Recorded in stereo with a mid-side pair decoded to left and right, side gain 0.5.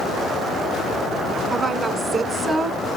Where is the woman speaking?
30° right, 3 m; by 2.8 s 40° right, 4 m.